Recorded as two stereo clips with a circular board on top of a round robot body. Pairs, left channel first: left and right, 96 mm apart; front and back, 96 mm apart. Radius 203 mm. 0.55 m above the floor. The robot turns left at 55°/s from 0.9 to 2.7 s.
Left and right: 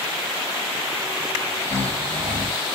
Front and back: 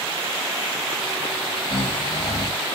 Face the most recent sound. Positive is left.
turn(degrees=-75)